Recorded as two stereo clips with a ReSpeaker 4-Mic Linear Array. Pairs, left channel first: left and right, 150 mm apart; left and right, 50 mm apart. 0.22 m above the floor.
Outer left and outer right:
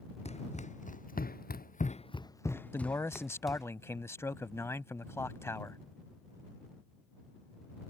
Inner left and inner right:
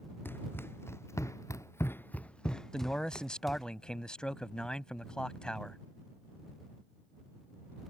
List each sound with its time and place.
0.2 s running footsteps: 45° left (ahead or behind); by 3.7 s 5° right (ahead or behind)
2.7 s a man speaking: 20° left (ahead or behind)